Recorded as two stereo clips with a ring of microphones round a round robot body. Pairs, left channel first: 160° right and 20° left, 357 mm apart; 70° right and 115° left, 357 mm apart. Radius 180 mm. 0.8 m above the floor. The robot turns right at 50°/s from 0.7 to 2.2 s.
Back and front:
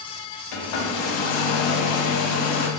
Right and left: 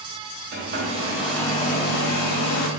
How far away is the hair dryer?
About 0.7 m.